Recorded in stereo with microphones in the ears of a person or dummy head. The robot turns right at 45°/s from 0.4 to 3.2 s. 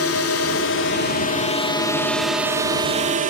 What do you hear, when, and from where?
0.0 s a drone: 95° left; by 3.3 s 140° right